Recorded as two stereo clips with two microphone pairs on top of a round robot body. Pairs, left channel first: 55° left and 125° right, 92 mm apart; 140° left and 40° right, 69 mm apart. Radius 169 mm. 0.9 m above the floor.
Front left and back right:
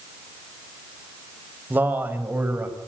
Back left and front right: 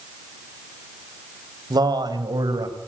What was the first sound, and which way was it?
A man speaking, 55° right.